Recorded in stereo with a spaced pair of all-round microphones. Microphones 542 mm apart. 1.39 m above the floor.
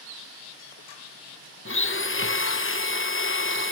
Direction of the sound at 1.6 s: 25° left (ahead or behind).